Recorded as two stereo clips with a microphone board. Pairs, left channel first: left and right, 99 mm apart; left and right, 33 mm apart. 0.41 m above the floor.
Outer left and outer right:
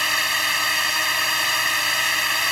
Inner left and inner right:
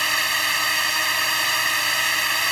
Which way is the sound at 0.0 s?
Centre (ahead or behind).